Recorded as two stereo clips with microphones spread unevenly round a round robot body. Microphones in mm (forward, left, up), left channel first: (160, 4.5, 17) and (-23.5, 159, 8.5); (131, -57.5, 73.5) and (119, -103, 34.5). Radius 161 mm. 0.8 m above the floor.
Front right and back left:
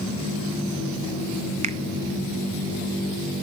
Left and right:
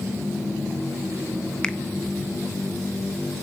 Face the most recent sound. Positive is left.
turn(degrees=-165)